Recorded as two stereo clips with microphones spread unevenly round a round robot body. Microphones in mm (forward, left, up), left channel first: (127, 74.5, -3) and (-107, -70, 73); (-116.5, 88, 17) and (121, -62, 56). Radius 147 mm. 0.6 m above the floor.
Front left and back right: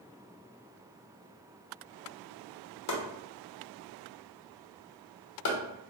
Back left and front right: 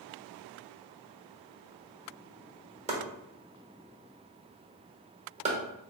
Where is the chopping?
35° left, 1.1 m.